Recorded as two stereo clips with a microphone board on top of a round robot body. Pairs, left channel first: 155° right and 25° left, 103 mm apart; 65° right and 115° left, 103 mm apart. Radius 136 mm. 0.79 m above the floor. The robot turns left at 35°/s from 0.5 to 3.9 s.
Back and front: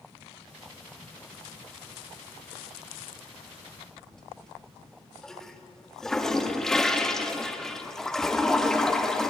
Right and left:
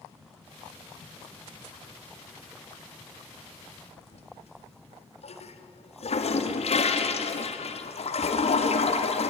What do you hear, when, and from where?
4.0 s a toilet flushing: 70° right, 2 m